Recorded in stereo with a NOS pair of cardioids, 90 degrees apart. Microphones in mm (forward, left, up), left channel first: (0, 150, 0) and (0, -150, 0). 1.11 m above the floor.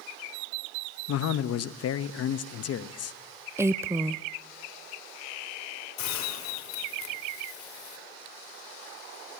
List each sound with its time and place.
1.1 s a man speaking: 55° left, 1.0 m
3.6 s a woman speaking: 10° right, 0.5 m
6.0 s a hiss: 70° left, 4.5 m